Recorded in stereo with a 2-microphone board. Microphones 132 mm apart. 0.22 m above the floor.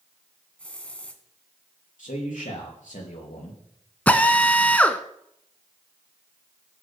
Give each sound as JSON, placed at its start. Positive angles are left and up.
{"t": 0.6, "sound": "a hiss", "side_deg": 10, "distance_m": 1.2}
{"t": 2.0, "sound": "a man speaking", "side_deg": 70, "distance_m": 4.5}
{"t": 4.1, "sound": "a drill", "side_deg": 10, "distance_m": 0.8}